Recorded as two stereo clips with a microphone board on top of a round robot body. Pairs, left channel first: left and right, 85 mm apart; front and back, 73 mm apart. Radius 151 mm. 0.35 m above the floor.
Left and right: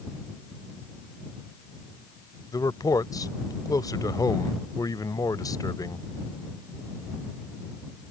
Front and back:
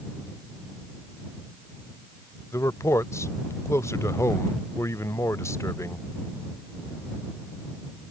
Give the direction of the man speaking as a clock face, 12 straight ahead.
10 o'clock.